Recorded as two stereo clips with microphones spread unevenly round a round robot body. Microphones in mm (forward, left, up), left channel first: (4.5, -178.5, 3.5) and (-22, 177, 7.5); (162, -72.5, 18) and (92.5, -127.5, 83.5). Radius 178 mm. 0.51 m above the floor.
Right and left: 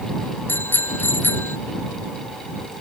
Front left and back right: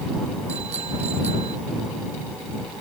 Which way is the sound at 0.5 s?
170° right.